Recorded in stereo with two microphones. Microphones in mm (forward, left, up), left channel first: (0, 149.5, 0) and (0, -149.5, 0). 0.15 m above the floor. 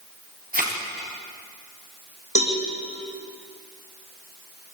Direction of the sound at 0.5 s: 30° right (ahead or behind).